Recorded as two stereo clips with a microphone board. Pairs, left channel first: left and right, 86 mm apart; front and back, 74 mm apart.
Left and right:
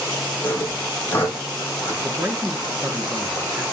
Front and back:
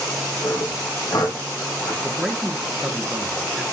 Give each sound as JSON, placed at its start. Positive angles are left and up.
{"t": 0.4, "sound": "sawing", "azimuth_deg": 25, "distance_m": 3.0}
{"t": 2.0, "sound": "a man speaking", "azimuth_deg": -95, "distance_m": 1.1}